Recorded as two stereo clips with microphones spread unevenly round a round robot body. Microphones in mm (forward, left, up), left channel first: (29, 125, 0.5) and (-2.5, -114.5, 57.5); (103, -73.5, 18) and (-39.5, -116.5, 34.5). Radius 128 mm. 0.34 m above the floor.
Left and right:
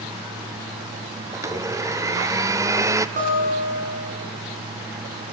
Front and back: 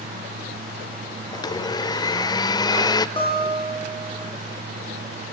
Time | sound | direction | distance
1.3 | a blender | 10° right | 0.9 m
3.2 | a guitar | 35° right | 7.5 m